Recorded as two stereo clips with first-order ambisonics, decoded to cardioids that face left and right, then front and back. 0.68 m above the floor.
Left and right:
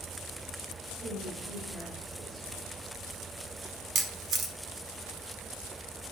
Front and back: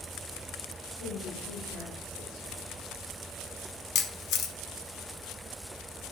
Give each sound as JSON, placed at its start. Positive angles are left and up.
{"t": 1.0, "sound": "a woman speaking", "azimuth_deg": -20, "distance_m": 1.7}
{"t": 4.0, "sound": "a camera shutter", "azimuth_deg": -35, "distance_m": 0.8}